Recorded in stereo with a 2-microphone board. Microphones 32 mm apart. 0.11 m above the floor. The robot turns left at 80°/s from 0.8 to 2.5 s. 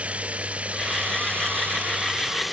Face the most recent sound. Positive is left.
turn(degrees=-175)